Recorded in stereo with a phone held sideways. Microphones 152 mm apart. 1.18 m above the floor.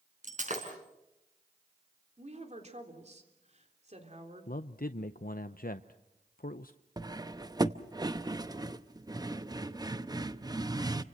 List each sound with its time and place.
0.2 s breaking glass: 55° right (ahead or behind), 4.5 m
2.2 s a woman speaking: 45° right (ahead or behind), 3.5 m
4.5 s a man speaking: 75° left (ahead or behind), 0.6 m
7.0 s cutlery clinking: 25° right (ahead or behind), 0.7 m